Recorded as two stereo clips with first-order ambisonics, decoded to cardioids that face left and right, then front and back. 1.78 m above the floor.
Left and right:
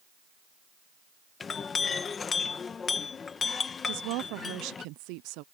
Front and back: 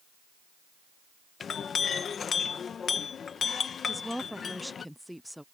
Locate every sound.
1.4 s a clink: 40° left
3.9 s a woman speaking: 90° right